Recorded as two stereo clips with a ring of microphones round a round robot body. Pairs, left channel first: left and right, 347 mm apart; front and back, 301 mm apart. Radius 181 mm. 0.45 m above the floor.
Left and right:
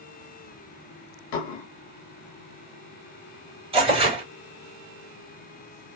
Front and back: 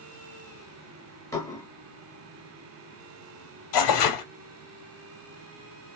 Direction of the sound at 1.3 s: 80° left.